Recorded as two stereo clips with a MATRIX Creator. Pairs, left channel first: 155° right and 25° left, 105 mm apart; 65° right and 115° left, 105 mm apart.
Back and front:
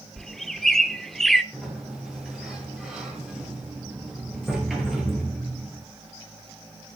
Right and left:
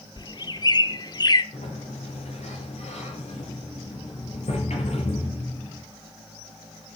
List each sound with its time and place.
0.2 s a bird: 70° right, 0.9 m
1.5 s a sliding door: 65° right, 5 m